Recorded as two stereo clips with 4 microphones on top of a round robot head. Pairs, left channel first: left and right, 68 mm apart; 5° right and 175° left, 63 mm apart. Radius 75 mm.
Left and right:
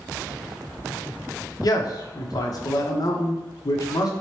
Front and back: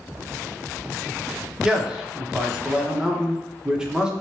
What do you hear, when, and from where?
1.6 s a man speaking: 100° left, 0.8 m